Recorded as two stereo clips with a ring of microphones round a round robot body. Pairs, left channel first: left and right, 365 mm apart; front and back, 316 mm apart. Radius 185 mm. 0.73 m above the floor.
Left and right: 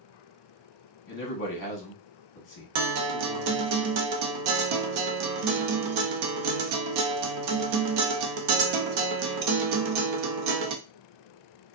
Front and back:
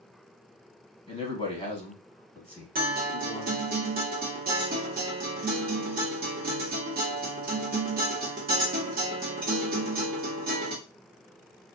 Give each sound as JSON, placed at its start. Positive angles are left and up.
{"t": 1.1, "sound": "a man speaking", "azimuth_deg": 65, "distance_m": 0.9}
{"t": 2.8, "sound": "a guitar", "azimuth_deg": -115, "distance_m": 0.6}